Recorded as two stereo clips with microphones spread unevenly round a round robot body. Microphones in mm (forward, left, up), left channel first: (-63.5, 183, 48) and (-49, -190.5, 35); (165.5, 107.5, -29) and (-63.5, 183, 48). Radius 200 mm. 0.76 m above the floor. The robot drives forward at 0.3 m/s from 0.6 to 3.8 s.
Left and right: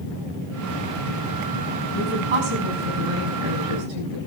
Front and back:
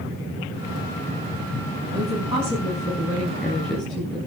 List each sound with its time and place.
1.9 s a woman speaking: 85° right, 6.5 m; by 4.2 s 90° right, 6.5 m